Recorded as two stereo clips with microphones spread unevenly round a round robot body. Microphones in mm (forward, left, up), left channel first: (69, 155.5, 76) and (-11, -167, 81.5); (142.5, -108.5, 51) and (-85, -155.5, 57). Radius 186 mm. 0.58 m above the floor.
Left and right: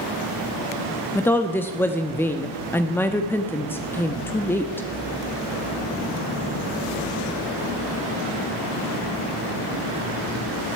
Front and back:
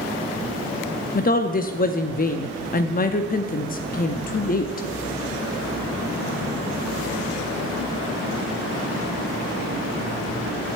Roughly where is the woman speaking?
Ahead.